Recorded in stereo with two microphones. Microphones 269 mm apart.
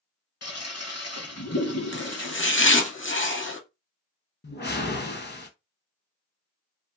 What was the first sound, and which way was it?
A toilet flushing, 65° left (ahead or behind).